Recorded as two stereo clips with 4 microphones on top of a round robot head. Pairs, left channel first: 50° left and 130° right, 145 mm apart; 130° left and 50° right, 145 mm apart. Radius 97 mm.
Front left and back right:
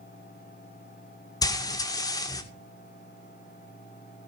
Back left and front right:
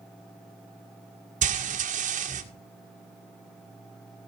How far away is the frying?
About 1.9 m.